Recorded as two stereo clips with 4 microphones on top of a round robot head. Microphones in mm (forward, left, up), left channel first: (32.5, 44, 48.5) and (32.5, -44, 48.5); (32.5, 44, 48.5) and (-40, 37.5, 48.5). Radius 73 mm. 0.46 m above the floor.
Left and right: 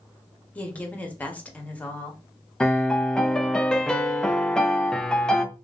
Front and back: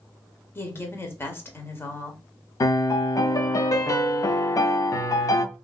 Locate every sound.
0.6 s a woman speaking: 30° left, 1.1 m
2.6 s a piano: 10° left, 0.5 m